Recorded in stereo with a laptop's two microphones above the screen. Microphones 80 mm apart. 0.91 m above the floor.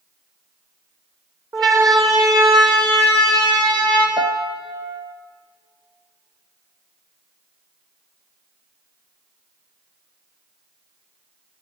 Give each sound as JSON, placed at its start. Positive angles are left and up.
{"t": 1.5, "sound": "a siren", "side_deg": -50, "distance_m": 4.0}
{"t": 4.2, "sound": "a piano", "side_deg": -65, "distance_m": 0.8}